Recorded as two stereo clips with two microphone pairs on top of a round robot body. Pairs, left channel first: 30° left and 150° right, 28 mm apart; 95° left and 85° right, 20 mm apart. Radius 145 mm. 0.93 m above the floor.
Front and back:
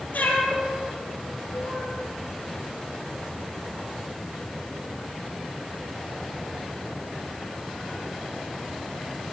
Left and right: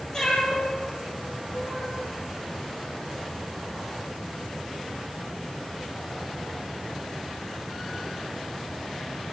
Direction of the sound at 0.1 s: 35° left.